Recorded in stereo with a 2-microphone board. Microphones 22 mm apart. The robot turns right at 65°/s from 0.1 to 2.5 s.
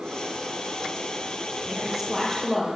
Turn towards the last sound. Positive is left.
turn(degrees=25)